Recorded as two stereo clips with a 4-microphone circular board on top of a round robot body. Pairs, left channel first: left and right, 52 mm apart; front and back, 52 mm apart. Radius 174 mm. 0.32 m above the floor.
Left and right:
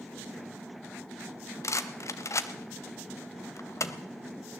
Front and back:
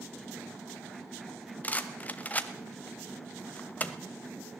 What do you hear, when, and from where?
1.6 s a rattle: 60° left, 0.9 m